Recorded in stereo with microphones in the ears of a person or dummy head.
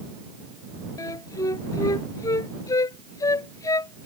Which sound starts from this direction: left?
A flute, at 1.0 s.